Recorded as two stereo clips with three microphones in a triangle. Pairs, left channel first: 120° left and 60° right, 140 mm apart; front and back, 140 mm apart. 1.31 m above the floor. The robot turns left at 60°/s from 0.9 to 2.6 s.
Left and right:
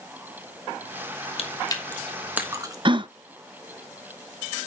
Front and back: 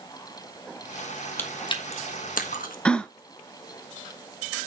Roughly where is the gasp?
Right.